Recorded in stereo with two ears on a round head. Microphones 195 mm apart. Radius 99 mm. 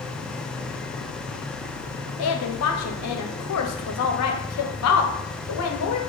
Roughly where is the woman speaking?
Left.